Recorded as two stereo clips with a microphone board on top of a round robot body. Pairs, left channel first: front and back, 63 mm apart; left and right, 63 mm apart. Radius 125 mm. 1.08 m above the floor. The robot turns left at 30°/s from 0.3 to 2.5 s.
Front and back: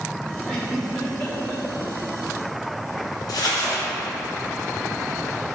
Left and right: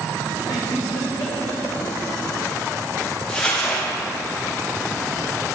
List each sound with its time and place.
0.5 s a giggle: 90° left, 2.5 m; by 1.6 s 55° left, 2.5 m
3.3 s crumpling: 15° left, 1.7 m